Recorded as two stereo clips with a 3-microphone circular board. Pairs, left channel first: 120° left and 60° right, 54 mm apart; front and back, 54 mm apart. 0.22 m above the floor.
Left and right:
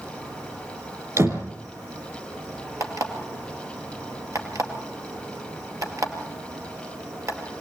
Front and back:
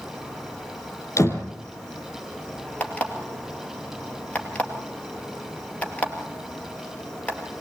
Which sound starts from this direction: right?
An insect, at 0.0 s.